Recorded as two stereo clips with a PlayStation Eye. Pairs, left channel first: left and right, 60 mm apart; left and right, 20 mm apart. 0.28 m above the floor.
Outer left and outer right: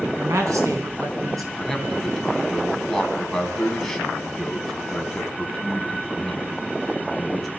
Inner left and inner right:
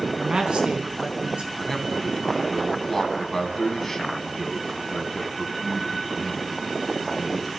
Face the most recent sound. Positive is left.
turn(degrees=5)  # may be behind; listen again after turning